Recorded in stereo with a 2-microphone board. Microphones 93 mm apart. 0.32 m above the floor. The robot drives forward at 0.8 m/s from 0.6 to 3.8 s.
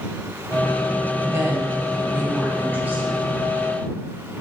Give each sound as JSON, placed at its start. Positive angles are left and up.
{"t": 1.2, "sound": "a woman speaking", "side_deg": -30, "distance_m": 1.8}